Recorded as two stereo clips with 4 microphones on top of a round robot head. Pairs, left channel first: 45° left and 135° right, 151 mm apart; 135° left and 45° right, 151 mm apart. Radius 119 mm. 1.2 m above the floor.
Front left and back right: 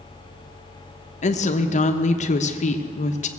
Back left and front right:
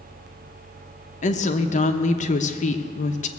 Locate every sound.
1.2 s a woman speaking: 90° left, 1.0 m